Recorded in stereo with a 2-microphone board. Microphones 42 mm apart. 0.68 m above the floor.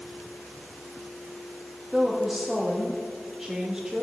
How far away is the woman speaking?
About 1.0 m.